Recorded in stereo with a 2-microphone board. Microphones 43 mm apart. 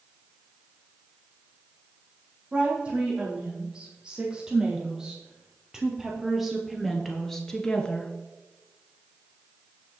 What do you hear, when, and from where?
2.5 s a woman speaking: 20° right (ahead or behind), 6 m; by 8.1 s 20° left (ahead or behind), 1.9 m